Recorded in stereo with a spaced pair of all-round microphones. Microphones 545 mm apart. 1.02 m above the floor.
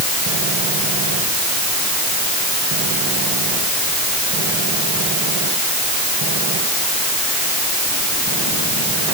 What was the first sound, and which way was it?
Only background noise.